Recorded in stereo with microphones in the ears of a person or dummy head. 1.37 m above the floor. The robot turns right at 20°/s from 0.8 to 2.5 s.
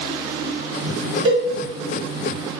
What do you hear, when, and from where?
1.2 s a cowbell: 25° right (ahead or behind), 1.1 m; by 1.4 s 30° right (ahead or behind), 1.1 m